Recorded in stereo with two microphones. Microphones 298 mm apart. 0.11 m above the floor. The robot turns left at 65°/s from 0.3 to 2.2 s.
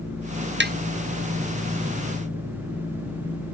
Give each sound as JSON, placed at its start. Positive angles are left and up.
{"t": 0.6, "sound": "tapping", "side_deg": -35}